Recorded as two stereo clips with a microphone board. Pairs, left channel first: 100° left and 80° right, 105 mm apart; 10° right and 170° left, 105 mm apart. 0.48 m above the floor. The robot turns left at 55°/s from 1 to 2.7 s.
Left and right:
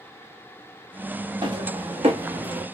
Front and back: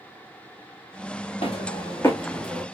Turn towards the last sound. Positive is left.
turn(degrees=-120)